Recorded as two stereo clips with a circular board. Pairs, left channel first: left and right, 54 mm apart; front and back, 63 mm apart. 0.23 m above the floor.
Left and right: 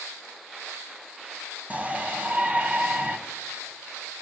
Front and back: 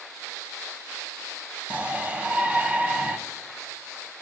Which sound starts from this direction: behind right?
A shout, at 1.7 s.